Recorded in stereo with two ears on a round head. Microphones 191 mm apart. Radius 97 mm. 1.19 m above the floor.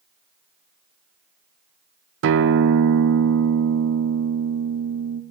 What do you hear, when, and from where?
2.2 s a guitar: 65° right (ahead or behind), 0.5 m